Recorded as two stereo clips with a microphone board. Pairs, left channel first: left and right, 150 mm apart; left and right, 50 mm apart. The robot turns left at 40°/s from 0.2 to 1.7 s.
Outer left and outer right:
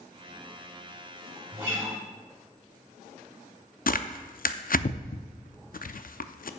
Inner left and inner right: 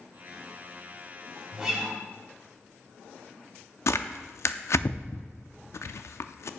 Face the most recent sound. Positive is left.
turn(degrees=70)  # may be behind; listen again after turning